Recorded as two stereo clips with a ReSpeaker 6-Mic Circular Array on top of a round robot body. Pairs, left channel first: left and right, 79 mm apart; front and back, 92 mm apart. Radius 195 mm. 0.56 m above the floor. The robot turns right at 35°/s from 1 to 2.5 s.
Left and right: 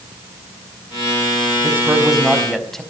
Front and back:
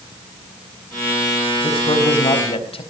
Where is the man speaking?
25° right, 4.5 m; by 2.8 s 5° left, 4.5 m.